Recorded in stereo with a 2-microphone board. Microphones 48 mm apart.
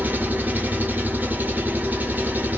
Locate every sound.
0.0 s an engine running: 40° right (ahead or behind), 0.8 m